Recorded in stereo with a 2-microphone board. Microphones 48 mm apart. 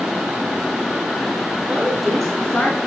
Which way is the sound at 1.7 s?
20° right (ahead or behind).